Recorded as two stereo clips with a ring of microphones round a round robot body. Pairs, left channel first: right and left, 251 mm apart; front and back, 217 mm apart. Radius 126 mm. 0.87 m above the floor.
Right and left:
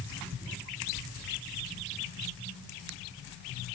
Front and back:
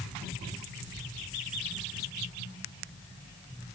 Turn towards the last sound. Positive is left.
No sound to turn to.